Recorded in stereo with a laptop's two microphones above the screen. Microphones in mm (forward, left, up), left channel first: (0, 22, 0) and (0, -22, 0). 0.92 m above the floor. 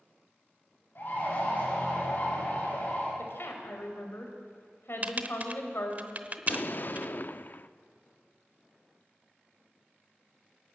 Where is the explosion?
50° left (ahead or behind), 0.7 m.